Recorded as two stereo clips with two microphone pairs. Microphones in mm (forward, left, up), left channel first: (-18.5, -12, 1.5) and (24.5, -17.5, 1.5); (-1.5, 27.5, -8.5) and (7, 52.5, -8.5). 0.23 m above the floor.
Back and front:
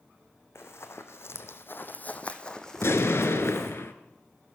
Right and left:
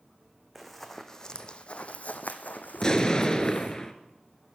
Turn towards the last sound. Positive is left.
turn(degrees=-175)